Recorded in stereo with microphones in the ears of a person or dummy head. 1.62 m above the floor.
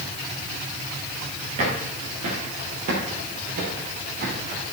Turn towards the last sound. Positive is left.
turn(degrees=-55)  # may be behind; listen again after turning